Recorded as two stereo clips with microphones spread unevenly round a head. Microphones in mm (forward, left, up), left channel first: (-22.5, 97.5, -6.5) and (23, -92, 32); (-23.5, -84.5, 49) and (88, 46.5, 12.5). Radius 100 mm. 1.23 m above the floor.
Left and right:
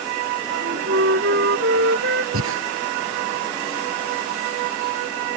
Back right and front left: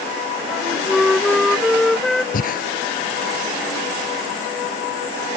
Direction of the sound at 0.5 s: 40° right.